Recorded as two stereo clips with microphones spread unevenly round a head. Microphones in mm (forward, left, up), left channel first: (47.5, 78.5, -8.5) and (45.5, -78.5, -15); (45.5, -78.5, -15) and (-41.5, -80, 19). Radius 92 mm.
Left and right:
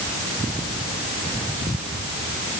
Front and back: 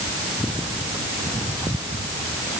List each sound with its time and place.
Only background noise.